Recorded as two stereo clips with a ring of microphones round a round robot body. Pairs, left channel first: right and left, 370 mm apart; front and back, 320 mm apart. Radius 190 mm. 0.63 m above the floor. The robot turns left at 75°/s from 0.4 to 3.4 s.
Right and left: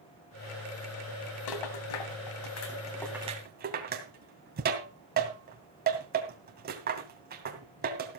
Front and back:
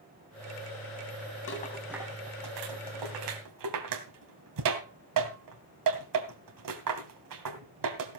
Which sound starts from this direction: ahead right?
A rattle, at 1.5 s.